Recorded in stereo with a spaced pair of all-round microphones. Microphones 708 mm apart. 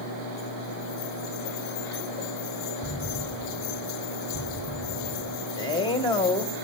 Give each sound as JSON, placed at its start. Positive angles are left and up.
{"t": 2.8, "sound": "an explosion", "side_deg": 20, "distance_m": 2.0}
{"t": 5.6, "sound": "a man speaking", "side_deg": 5, "distance_m": 1.7}